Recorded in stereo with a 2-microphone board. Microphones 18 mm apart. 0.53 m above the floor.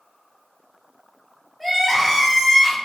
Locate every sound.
1.6 s crying: 5° right (ahead or behind), 1.2 m